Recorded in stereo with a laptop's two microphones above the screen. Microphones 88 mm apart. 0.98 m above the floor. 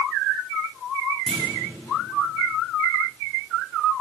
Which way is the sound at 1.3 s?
5° left (ahead or behind).